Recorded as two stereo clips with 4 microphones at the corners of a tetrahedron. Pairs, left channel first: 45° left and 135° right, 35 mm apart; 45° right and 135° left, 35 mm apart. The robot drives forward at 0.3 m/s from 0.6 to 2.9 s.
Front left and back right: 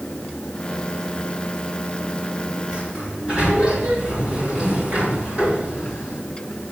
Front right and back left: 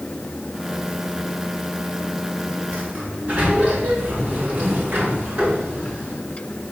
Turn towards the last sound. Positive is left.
turn(degrees=170)